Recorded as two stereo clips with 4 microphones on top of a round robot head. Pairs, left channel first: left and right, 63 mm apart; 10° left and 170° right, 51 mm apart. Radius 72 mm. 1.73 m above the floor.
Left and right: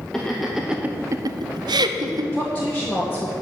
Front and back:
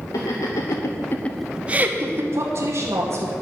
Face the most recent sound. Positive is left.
turn(degrees=165)